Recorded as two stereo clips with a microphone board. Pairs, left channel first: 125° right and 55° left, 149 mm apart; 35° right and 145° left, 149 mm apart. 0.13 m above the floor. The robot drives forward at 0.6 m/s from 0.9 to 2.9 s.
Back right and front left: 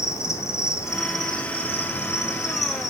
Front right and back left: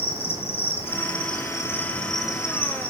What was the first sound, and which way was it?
An insect, 60° right.